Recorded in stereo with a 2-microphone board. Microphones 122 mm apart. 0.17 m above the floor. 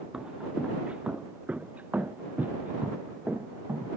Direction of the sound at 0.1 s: 5° right (ahead or behind).